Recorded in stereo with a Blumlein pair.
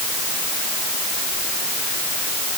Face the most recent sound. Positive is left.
No sound to turn to.